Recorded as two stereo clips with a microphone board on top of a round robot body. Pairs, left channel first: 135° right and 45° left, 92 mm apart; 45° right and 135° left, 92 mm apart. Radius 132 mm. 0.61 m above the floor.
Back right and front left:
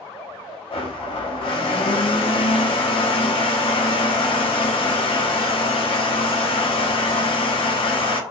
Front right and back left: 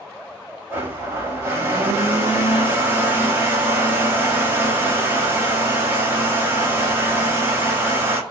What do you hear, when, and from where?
0.7 s a blender: 160° right, 0.8 m